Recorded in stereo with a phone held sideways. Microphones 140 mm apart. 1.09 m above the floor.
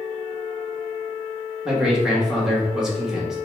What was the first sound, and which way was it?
A man speaking, 5° right (ahead or behind).